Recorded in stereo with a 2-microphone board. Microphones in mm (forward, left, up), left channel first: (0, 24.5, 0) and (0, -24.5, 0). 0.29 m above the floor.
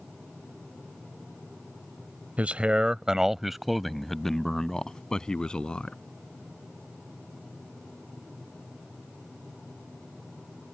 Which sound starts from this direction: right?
A man speaking, at 2.4 s.